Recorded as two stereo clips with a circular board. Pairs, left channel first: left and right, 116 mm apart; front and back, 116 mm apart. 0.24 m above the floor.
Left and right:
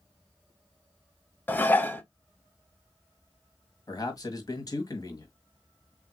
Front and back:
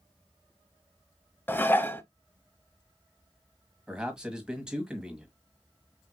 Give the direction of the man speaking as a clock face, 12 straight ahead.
9 o'clock.